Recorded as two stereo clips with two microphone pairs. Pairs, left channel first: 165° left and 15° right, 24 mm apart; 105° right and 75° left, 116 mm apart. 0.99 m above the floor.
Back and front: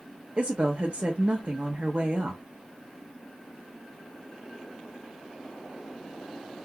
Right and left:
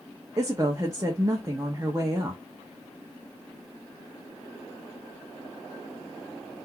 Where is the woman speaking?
10° left, 1.3 m.